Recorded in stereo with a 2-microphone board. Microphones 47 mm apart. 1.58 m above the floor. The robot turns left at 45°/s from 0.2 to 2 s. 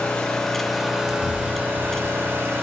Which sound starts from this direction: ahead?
An engine running, at 0.0 s.